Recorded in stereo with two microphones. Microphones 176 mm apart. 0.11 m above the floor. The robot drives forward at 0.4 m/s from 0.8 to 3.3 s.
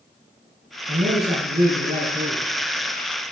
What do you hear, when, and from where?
0.9 s a man speaking: 65° right (ahead or behind), 4 m; by 2.5 s 55° right (ahead or behind), 4 m